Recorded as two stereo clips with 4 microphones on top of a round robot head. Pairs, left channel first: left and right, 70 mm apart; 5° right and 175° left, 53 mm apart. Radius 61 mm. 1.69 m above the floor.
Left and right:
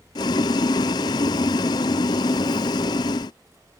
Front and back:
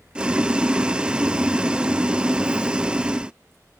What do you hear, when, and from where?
0.1 s boiling: 105° left